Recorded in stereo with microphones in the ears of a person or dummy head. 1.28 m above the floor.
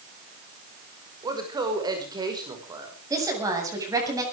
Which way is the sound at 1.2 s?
20° right (ahead or behind).